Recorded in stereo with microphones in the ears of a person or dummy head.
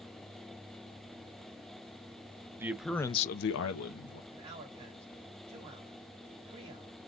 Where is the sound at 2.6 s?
15° right (ahead or behind), 1.1 m; by 4.2 s 70° left (ahead or behind), 1.5 m.